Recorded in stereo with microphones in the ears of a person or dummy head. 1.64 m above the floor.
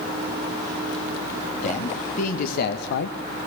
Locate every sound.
1.6 s a man speaking: 40° left (ahead or behind), 2.5 m; by 3.2 s 60° left (ahead or behind), 0.9 m